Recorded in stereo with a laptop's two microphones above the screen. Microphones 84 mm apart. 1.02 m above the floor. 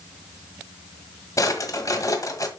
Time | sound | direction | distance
1.4 | a drawer | 40° left (ahead or behind) | 1.5 m